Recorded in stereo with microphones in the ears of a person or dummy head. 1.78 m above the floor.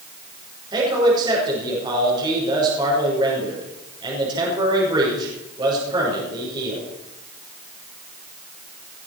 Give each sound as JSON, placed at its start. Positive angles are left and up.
{"t": 0.7, "sound": "a man speaking", "side_deg": -30, "distance_m": 5.5}